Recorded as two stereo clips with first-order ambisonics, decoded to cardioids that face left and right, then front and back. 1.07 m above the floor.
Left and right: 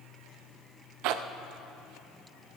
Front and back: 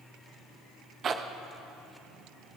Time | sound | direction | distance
1.0 | a zipper | 115° right | 0.6 m